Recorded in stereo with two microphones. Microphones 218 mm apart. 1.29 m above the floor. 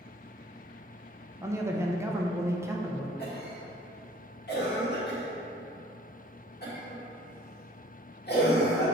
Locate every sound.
1.4 s a man speaking: 10° right (ahead or behind), 0.7 m
3.2 s a cough: 50° left (ahead or behind), 1.8 m